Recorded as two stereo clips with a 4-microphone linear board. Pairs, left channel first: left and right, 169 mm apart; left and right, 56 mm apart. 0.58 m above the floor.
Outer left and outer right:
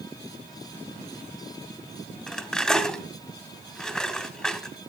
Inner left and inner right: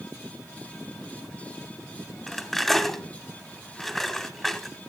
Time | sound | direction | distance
2.3 | cutlery clinking | 5° left (ahead or behind) | 1.5 m